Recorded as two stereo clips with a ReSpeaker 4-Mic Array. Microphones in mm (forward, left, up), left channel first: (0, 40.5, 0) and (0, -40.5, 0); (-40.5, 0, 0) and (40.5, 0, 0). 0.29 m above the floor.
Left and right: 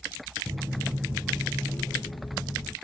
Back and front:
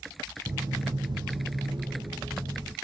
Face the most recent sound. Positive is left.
turn(degrees=30)